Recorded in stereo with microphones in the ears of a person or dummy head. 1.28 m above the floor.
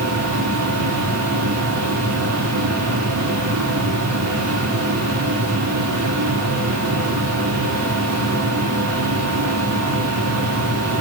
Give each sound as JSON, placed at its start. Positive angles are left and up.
{"t": 0.0, "sound": "a machine running", "side_deg": -85, "distance_m": 3.5}